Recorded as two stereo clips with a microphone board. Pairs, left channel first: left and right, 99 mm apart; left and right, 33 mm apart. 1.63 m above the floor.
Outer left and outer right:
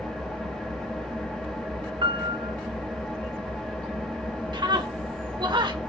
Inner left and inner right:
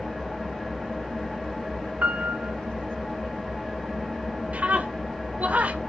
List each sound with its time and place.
0.0 s an engine running: 5° left (ahead or behind), 1.6 m
2.0 s a piano: 60° right (ahead or behind), 0.6 m
4.5 s a scream: 50° right (ahead or behind), 1.5 m